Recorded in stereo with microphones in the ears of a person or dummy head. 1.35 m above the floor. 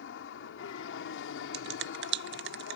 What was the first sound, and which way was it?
An aircraft, 70° left (ahead or behind).